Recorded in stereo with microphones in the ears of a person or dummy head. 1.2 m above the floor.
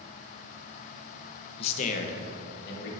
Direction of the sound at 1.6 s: 35° left (ahead or behind).